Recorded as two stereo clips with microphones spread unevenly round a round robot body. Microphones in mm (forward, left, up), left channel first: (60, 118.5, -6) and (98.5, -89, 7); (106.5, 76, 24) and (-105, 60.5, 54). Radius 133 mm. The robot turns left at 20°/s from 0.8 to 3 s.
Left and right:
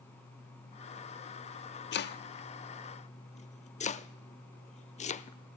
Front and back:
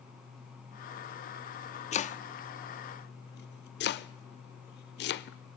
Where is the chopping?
65° left, 0.6 m; by 5.4 s 40° left, 0.6 m.